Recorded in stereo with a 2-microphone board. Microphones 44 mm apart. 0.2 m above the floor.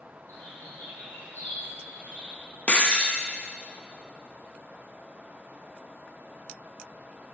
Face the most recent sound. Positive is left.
turn(degrees=30)  # may be behind; listen again after turning